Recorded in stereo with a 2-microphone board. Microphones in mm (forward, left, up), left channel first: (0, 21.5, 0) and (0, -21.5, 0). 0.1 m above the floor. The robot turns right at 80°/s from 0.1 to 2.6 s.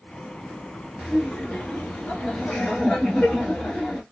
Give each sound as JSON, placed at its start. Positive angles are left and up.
{"t": 1.0, "sound": "laughter", "azimuth_deg": -5, "distance_m": 1.3}